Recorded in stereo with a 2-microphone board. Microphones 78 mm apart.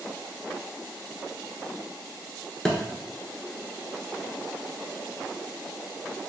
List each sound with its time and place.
2.6 s a thud: 10° left (ahead or behind), 0.8 m